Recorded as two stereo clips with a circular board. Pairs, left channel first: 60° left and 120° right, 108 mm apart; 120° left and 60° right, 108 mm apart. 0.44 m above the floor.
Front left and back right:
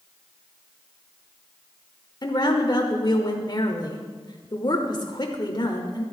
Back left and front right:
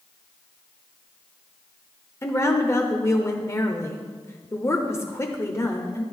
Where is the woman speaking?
70° left, 1.0 m.